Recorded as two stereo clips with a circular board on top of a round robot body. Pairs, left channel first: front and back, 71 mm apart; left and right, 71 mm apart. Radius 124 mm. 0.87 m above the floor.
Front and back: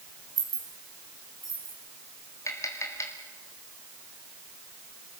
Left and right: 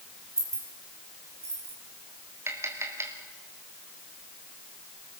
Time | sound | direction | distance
0.4 | keys jangling | 140° right | 4.5 m
2.5 | tapping | 40° right | 3 m